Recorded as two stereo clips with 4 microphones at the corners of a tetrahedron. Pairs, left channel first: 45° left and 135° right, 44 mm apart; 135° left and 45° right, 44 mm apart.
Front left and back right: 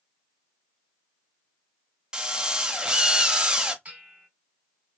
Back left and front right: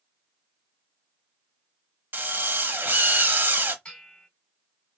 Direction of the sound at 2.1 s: 70° right.